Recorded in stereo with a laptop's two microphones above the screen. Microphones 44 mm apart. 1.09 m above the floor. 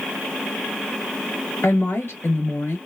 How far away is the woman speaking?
About 1.0 m.